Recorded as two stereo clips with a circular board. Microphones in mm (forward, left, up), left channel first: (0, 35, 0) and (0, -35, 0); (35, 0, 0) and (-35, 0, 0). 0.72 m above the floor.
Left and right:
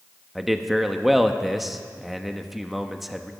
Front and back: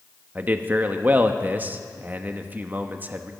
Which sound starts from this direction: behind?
A man speaking, at 0.3 s.